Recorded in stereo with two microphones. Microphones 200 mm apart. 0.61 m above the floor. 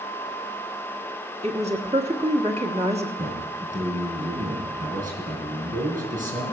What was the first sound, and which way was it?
A woman speaking, 35° right (ahead or behind).